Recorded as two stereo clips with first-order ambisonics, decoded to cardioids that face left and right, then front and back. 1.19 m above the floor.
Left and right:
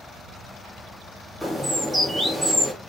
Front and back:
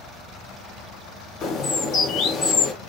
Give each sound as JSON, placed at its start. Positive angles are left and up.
{"t": 1.4, "sound": "a bird", "azimuth_deg": -5, "distance_m": 0.6}